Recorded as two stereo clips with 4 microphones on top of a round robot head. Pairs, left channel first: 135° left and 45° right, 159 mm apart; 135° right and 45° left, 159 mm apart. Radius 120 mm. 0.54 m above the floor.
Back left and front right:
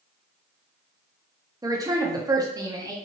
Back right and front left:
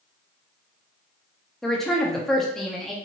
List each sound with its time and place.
1.6 s a woman speaking: 50° right, 0.7 m